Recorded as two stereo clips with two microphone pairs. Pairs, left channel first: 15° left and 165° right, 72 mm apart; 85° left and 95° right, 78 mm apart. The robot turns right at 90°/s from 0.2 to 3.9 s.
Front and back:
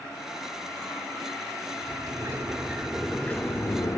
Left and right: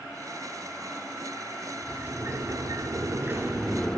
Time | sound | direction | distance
1.8 | a sliding door | 175° right | 0.5 m